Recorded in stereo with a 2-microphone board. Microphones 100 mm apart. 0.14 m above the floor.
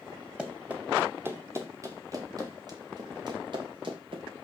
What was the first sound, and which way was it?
Running footsteps, 10° right (ahead or behind).